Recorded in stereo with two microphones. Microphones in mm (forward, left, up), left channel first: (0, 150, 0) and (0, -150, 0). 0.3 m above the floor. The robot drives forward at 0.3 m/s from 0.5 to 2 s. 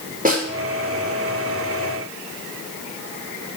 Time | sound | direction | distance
0.2 | a snare drum | 25° right (ahead or behind) | 6 m